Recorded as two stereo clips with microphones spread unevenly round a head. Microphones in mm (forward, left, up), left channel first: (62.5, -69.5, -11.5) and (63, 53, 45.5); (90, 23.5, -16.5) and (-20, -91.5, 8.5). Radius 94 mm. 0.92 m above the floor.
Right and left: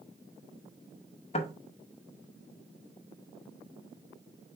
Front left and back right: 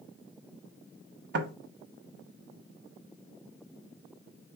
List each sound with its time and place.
1.3 s knocking: 125° right, 0.9 m